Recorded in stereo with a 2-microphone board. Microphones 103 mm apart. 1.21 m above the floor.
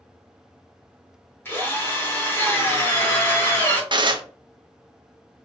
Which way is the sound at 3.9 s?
45° right (ahead or behind).